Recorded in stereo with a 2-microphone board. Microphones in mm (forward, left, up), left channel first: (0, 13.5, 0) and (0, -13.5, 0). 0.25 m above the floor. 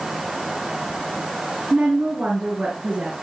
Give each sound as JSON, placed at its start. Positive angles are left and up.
{"t": 1.7, "sound": "a woman speaking", "side_deg": -40, "distance_m": 3.0}